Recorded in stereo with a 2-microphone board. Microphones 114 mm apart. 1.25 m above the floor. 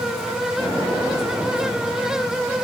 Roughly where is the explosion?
Right.